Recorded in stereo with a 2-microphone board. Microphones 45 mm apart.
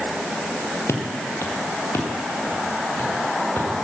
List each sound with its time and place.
0.9 s footsteps: 90° left, 2.5 m; by 3.7 s 55° left (ahead or behind), 5 m